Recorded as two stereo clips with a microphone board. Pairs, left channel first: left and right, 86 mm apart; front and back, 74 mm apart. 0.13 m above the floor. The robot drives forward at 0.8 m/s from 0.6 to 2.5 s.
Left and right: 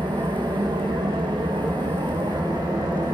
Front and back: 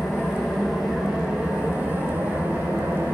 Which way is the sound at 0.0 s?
95° right.